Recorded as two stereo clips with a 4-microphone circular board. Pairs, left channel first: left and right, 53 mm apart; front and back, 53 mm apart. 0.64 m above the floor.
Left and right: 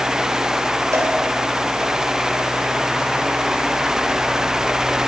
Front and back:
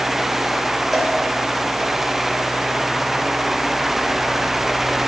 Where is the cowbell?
95° right, 3 m.